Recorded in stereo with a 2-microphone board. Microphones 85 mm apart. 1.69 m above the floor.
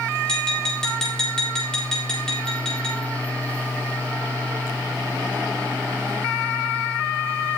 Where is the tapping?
5° left (ahead or behind), 4.5 m.